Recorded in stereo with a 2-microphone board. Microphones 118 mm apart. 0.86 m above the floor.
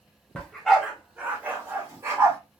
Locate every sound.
0.3 s a dog barking: 10° left (ahead or behind), 0.9 m; by 2.4 s 25° right (ahead or behind), 1.7 m